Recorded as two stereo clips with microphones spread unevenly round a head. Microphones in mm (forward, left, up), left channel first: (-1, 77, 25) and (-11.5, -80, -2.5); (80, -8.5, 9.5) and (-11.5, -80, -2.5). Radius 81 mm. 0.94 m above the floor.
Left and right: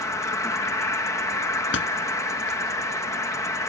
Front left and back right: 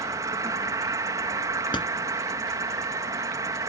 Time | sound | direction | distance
0.0 | an insect | 165° left | ?
1.7 | a door slam | 105° left | ?